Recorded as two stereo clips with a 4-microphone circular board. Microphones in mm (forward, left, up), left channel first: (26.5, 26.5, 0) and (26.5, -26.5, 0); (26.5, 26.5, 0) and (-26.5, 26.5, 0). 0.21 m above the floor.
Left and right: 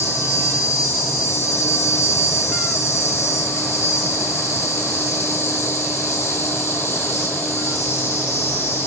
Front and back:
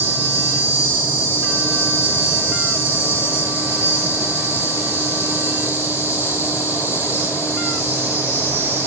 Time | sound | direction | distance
0.0 | an insect | 135° left | 4.5 m